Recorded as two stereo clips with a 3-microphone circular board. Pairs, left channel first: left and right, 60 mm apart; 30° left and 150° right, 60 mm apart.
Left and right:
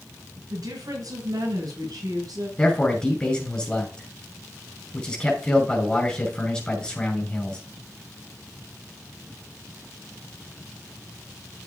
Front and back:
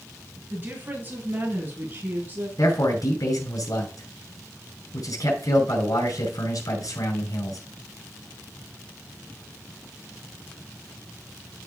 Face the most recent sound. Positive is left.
turn(degrees=15)